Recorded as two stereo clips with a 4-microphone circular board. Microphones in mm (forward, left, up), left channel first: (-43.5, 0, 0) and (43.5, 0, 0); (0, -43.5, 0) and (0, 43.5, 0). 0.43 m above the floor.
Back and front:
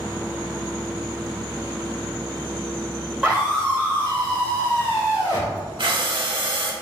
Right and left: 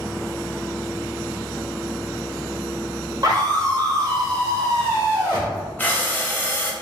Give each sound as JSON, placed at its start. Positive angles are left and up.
{"t": 3.2, "sound": "a scream", "azimuth_deg": 90, "distance_m": 1.6}
{"t": 5.8, "sound": "breathing", "azimuth_deg": -20, "distance_m": 0.7}